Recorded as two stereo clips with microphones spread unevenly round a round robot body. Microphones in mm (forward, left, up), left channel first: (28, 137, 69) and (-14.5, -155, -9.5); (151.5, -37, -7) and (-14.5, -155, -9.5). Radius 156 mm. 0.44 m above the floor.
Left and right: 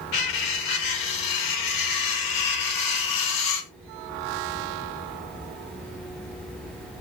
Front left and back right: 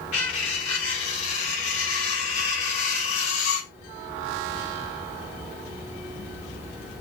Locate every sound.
0.1 s cutlery clinking: 50° left, 0.9 m